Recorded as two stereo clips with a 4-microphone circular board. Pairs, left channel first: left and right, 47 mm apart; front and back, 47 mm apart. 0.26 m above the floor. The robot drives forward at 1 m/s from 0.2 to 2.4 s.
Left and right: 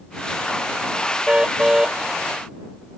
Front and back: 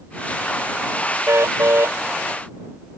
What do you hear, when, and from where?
1.3 s a car horn: 165° right; by 2.0 s 170° right